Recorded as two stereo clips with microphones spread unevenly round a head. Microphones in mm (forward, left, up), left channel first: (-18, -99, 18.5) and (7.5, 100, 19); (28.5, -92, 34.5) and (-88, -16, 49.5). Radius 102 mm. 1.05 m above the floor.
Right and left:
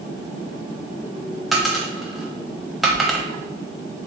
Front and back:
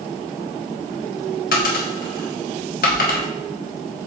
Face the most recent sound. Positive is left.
turn(degrees=-5)